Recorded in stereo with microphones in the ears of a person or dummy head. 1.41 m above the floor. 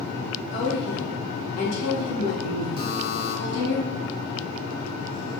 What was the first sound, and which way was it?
A woman speaking, 65° left (ahead or behind).